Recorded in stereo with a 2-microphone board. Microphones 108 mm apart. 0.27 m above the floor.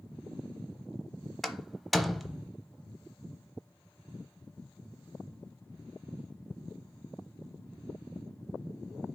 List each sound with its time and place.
1.4 s a door slam: centre (ahead or behind), 0.8 m